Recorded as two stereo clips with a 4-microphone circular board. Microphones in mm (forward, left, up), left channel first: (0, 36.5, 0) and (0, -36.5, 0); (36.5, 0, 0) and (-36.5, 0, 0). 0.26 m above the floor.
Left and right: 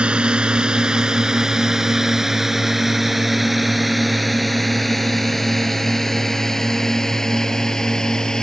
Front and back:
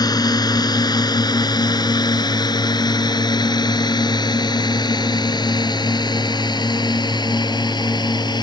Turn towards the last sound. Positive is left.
turn(degrees=10)